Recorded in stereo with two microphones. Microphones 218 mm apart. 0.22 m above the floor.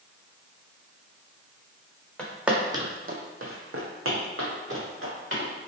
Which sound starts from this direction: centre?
Footsteps, at 2.2 s.